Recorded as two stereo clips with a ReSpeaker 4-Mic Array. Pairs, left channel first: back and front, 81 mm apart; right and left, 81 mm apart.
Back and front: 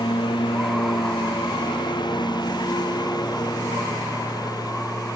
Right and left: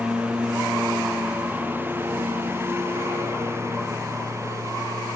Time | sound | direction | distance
0.0 | a lawn mower | 165° left | ?